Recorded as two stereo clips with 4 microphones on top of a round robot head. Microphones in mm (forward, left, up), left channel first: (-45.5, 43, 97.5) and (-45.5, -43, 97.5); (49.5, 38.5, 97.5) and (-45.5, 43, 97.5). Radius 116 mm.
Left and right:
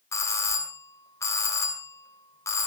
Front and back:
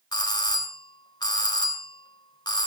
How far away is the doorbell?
About 4 m.